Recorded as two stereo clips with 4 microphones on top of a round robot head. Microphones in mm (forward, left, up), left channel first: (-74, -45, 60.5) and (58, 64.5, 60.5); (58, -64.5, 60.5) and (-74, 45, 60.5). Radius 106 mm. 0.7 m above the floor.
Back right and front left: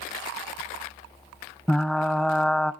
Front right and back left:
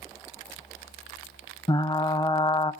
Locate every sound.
1.7 s frying: 55° right, 0.8 m